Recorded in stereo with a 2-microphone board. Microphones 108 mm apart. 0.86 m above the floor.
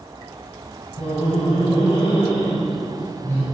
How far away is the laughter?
About 6 m.